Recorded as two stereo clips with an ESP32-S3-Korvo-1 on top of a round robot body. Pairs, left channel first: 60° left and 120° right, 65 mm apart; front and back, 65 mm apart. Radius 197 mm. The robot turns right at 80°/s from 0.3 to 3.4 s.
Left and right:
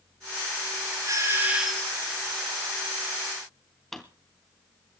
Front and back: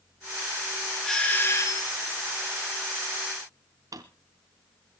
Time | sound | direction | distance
1.1 | a doorbell | 85° right | 4 m
3.9 | a drawer | 145° left | 0.6 m